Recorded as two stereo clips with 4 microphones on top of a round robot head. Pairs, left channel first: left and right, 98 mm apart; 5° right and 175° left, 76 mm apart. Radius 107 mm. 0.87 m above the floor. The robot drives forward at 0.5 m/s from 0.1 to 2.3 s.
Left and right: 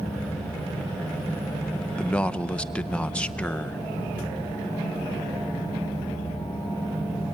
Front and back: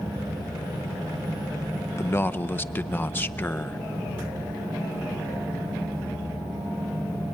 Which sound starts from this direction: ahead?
A man speaking, at 2.0 s.